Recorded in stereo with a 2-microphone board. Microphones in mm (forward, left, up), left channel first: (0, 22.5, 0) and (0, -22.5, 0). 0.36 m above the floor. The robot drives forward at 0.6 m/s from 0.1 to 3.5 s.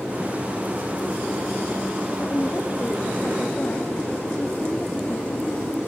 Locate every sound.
2.2 s a woman speaking: 30° left (ahead or behind)